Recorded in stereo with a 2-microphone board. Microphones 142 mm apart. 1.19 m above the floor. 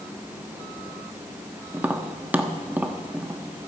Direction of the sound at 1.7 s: 10° right (ahead or behind).